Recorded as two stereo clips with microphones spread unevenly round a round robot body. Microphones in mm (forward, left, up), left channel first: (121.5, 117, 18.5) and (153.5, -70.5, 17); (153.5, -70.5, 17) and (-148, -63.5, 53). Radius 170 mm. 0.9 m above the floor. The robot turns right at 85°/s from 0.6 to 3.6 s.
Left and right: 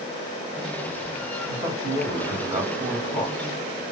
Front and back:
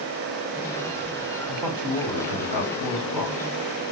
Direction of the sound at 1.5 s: 125° right.